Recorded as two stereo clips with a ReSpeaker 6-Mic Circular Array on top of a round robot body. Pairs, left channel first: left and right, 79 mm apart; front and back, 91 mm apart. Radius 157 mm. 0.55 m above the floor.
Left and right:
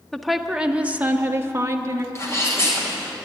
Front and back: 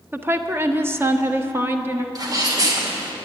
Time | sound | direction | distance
0.1 | a woman speaking | 170° left | 1.1 m
2.1 | a sneeze | 140° left | 2.5 m